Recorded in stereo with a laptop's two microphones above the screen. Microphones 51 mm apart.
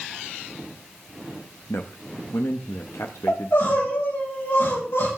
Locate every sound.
1.7 s a man speaking: 80° left, 0.9 m
3.3 s crying: 70° left (ahead or behind), 8 m